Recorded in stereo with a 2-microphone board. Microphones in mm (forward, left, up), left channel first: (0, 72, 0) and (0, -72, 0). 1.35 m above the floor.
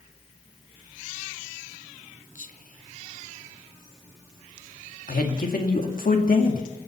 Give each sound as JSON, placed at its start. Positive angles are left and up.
{"t": 2.4, "sound": "whispering", "side_deg": 70, "distance_m": 1.1}
{"t": 5.1, "sound": "a man speaking", "side_deg": 80, "distance_m": 2.0}